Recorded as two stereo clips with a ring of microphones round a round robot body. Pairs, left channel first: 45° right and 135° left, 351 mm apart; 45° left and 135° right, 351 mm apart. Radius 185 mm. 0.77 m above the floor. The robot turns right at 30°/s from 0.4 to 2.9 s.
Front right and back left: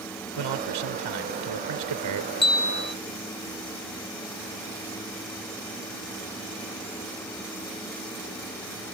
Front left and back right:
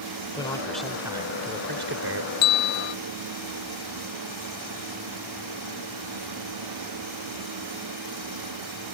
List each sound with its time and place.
0.4 s a man speaking: 125° left; by 2.3 s straight behind
2.4 s a bell: 30° left; by 3.0 s 45° left